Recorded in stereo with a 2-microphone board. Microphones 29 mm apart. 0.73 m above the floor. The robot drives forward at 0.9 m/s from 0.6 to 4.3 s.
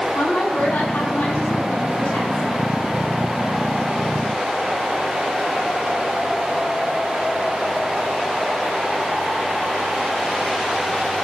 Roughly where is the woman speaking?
Left.